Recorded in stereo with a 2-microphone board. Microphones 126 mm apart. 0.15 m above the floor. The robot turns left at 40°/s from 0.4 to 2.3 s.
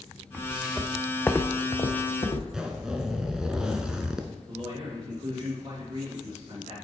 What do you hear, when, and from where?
0.3 s footsteps: 10° right (ahead or behind), 1.3 m; by 2.4 s 45° left (ahead or behind), 1.5 m
2.5 s a zipper: 5° right (ahead or behind), 0.6 m
4.5 s a man speaking: 40° right (ahead or behind), 2.5 m